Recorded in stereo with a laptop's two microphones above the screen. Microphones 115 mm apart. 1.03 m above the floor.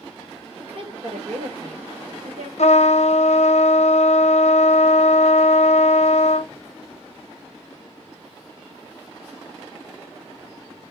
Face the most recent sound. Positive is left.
turn(degrees=70)  # may be behind; listen again after turning